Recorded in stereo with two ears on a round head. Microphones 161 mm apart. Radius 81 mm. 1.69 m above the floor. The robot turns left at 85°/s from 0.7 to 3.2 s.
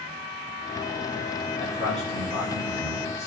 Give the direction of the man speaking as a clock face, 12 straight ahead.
10 o'clock.